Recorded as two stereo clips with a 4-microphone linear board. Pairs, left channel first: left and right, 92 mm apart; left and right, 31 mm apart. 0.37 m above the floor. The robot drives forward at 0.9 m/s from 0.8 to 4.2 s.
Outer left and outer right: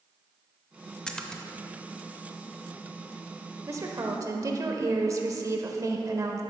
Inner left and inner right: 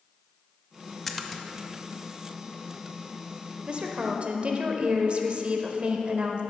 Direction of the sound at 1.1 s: 10° left (ahead or behind).